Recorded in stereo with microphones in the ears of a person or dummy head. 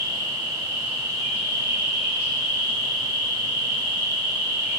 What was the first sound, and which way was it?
An insect, 25° right (ahead or behind).